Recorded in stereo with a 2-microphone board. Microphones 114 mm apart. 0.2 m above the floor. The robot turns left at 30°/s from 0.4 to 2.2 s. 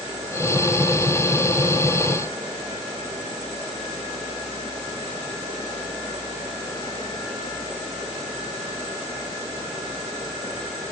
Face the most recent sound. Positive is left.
No sound to turn to.